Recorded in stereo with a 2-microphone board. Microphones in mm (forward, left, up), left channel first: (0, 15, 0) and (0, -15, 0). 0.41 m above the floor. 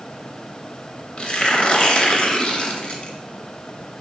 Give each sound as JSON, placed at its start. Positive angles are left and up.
{"t": 1.2, "sound": "tearing paper", "side_deg": 40, "distance_m": 0.7}